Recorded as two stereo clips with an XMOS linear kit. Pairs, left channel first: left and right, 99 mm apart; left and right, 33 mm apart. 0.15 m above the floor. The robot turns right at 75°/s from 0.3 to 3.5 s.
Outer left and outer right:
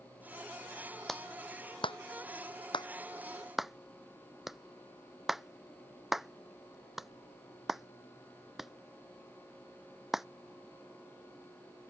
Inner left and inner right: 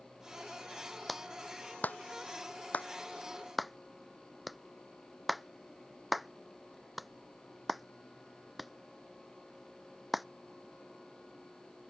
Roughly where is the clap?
Centre.